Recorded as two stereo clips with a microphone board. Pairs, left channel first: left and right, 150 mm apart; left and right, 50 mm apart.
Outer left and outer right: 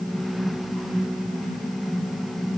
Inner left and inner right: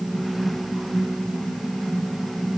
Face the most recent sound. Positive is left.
No sound to turn to.